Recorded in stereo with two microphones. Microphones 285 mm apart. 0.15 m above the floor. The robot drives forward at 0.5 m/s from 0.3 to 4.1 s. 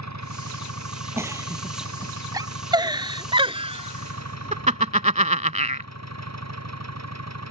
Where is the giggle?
10° right (ahead or behind); by 5.9 s 25° right (ahead or behind).